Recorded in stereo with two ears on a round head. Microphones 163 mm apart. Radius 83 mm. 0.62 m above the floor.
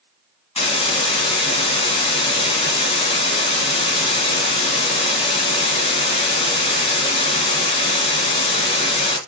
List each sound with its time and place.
0.6 s a hiss: 35° left (ahead or behind), 2.5 m